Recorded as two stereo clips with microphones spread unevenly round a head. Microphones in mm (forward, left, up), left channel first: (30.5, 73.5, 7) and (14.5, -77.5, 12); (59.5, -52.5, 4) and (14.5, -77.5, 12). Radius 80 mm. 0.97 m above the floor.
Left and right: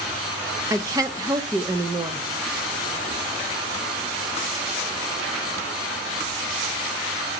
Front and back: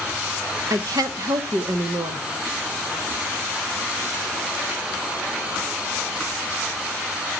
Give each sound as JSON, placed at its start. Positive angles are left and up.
{"t": 0.7, "sound": "a woman speaking", "azimuth_deg": -165, "distance_m": 0.8}